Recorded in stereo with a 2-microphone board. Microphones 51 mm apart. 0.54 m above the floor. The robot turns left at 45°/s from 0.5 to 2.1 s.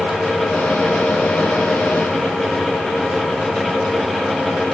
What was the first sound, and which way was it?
Only background noise.